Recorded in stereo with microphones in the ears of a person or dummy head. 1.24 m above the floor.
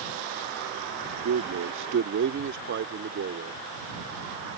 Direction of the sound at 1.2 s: 70° right (ahead or behind).